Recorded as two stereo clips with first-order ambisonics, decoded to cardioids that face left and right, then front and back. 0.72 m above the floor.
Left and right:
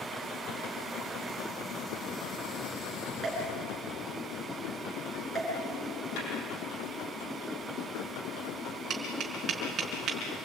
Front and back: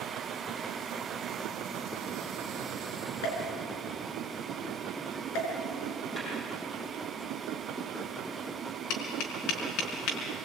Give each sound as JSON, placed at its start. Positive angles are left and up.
{"t": 3.2, "sound": "a pop", "azimuth_deg": -5, "distance_m": 7.0}
{"t": 6.2, "sound": "a snare drum", "azimuth_deg": 80, "distance_m": 7.0}
{"t": 8.9, "sound": "tapping", "azimuth_deg": -30, "distance_m": 4.5}